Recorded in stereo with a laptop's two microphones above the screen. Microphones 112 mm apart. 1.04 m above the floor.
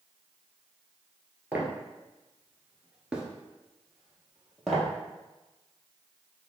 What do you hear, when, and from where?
1.5 s footsteps: 15° right (ahead or behind), 1.2 m; by 4.9 s centre (ahead or behind), 1.8 m